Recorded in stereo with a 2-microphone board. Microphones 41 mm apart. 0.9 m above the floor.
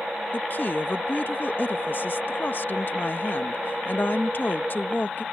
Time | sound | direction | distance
0.3 | a woman speaking | 50° left (ahead or behind) | ?